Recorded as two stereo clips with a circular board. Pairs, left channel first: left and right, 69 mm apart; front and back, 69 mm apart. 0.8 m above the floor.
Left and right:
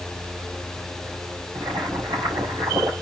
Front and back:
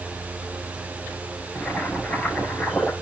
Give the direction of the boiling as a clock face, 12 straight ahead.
3 o'clock.